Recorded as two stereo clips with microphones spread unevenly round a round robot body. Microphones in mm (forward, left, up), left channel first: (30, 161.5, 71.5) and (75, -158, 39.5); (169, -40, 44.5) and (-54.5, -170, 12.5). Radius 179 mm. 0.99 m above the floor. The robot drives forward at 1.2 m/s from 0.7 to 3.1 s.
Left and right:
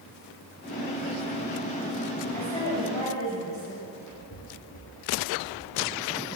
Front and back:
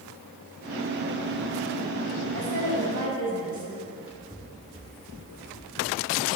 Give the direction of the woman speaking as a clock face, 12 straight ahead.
6 o'clock.